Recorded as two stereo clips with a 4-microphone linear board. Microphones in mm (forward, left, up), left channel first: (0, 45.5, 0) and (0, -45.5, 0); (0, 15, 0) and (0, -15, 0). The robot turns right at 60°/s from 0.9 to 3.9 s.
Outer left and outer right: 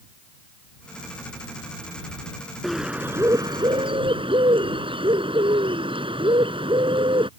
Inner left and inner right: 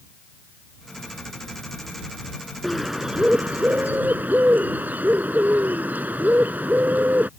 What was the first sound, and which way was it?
A bird, straight behind.